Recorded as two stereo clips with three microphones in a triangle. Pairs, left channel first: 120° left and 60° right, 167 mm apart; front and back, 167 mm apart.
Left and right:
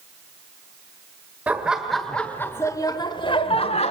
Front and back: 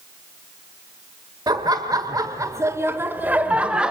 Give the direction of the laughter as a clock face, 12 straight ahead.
4 o'clock.